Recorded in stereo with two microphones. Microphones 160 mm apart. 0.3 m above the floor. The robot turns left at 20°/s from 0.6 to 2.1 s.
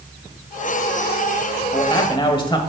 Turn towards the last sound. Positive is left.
turn(degrees=30)  # may be behind; listen again after turning